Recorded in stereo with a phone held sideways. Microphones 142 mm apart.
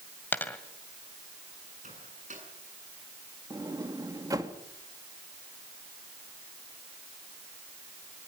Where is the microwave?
60° right (ahead or behind), 8 m.